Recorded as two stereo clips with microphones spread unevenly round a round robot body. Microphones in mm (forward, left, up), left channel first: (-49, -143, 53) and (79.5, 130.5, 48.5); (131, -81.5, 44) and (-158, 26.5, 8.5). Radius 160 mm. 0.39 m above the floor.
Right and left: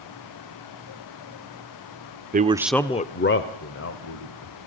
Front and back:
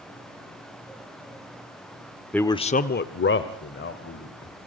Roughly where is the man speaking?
Left.